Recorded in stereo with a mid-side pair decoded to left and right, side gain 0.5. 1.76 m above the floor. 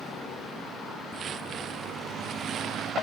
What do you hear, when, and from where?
1.1 s footsteps: 55° right; by 2.9 s 65° right